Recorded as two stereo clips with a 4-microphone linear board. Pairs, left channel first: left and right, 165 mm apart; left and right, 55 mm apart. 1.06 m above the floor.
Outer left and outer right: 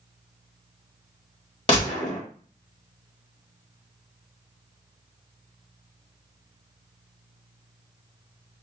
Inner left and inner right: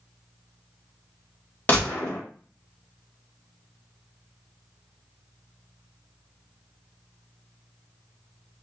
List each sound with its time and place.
1.7 s a gunshot: 30° left (ahead or behind), 1.6 m